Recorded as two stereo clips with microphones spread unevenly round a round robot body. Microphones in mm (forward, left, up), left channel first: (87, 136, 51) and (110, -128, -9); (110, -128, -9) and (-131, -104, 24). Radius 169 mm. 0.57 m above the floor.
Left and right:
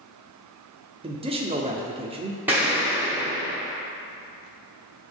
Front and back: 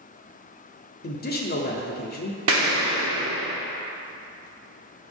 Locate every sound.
1.0 s a man speaking: 30° right, 0.9 m
2.5 s an explosion: 160° right, 1.0 m